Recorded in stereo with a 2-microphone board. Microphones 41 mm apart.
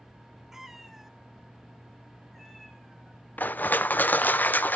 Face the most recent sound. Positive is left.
turn(degrees=45)  # may be behind; listen again after turning